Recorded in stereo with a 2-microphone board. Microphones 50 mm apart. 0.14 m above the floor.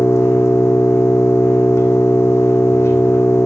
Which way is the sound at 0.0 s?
65° left (ahead or behind).